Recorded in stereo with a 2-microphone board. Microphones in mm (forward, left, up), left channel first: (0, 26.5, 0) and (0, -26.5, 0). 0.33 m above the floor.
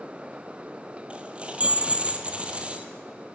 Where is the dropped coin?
25° right (ahead or behind), 1.8 m.